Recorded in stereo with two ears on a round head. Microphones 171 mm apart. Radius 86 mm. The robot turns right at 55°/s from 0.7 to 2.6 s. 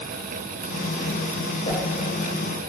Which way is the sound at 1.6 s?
40° left (ahead or behind).